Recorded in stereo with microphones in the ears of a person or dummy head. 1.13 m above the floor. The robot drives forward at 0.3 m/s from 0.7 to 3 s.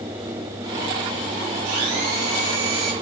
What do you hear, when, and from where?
1.6 s a blender: 70° right (ahead or behind), 5.5 m